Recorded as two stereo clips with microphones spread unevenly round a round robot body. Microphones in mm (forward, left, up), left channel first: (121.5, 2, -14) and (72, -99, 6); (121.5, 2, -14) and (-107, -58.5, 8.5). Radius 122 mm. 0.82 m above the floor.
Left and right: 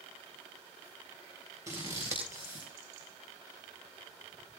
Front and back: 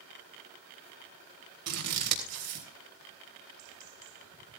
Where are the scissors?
165° left, 3.5 m.